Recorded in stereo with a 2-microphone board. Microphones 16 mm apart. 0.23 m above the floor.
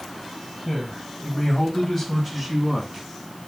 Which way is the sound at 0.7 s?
30° left (ahead or behind).